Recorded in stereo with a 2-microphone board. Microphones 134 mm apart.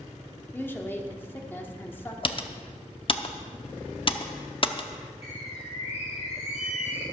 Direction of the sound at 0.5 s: 15° left (ahead or behind).